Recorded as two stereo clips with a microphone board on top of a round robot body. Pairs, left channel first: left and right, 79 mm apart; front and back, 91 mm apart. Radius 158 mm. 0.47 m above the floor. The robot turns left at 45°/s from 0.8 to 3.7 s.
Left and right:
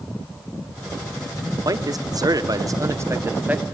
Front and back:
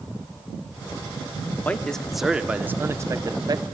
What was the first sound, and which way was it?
A man speaking, 70° right.